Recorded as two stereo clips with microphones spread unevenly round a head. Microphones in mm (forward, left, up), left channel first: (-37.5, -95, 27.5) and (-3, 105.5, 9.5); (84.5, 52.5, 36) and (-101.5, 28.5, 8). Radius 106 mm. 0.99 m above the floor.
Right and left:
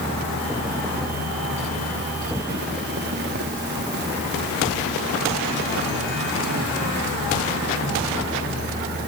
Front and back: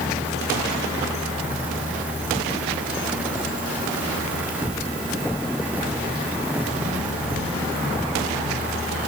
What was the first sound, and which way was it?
Only background noise.